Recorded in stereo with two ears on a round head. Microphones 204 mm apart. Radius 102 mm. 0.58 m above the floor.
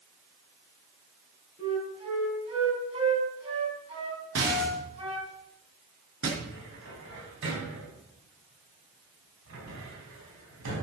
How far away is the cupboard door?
About 4.5 m.